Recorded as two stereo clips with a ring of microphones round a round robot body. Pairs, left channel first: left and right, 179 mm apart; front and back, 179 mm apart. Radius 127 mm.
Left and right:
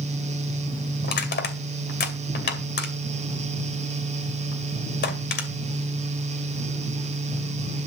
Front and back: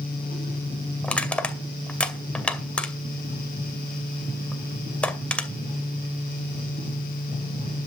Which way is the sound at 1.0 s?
85° left.